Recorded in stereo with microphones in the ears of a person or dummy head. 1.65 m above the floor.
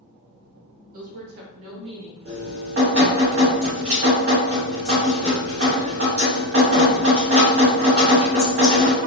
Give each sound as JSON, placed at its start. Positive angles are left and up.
{"t": 0.9, "sound": "a woman speaking", "side_deg": -50, "distance_m": 1.0}
{"t": 2.2, "sound": "dripping", "side_deg": -50, "distance_m": 2.0}